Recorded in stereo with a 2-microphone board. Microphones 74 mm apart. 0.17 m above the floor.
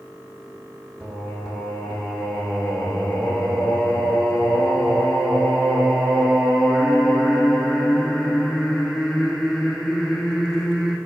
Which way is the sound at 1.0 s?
5° right (ahead or behind).